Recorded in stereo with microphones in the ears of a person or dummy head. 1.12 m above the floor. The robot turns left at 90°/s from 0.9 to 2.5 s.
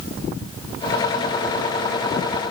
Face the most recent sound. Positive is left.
No sound to turn to.